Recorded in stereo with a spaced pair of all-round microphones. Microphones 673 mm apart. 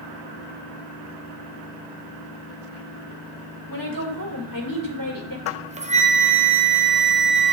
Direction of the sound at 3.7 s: 30° left (ahead or behind).